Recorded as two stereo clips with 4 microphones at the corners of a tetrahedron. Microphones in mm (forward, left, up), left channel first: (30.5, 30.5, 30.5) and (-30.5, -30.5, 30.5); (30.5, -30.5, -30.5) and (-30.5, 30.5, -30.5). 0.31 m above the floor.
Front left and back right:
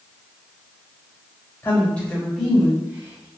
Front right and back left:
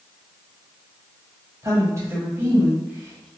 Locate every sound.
1.6 s a woman speaking: 105° left, 1.4 m; by 3.3 s 145° right, 1.1 m